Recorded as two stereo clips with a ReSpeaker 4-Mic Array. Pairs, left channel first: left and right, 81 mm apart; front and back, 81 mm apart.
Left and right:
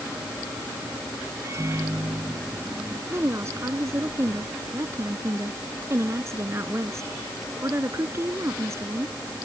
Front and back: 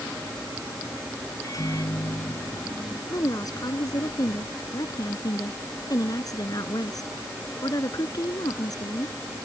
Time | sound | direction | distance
1.4 | a microwave | 40° right | ?
3.1 | a woman speaking | 35° right | ?